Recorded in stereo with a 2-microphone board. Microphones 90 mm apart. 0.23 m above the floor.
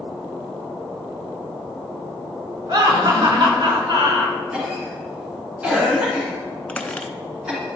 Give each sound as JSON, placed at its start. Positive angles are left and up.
{"t": 2.7, "sound": "laughter", "side_deg": -50, "distance_m": 3.0}
{"t": 4.5, "sound": "a cough", "side_deg": -10, "distance_m": 2.5}
{"t": 6.7, "sound": "a squeak", "side_deg": 15, "distance_m": 0.7}